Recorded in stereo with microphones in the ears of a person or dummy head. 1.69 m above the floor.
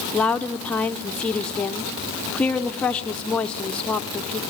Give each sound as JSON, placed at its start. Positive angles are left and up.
{"t": 0.1, "sound": "a woman speaking", "side_deg": 5, "distance_m": 0.9}